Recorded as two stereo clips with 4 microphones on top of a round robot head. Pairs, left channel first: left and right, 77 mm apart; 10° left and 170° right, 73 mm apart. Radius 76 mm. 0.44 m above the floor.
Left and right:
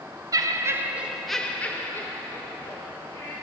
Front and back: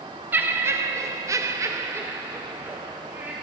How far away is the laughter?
About 1.5 m.